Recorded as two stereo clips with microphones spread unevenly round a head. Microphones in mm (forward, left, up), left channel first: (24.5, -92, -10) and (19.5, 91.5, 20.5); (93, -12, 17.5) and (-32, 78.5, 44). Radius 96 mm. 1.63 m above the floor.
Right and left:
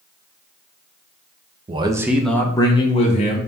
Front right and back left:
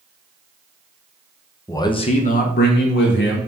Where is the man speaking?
40° left, 0.6 m; by 3.4 s 35° right, 1.0 m.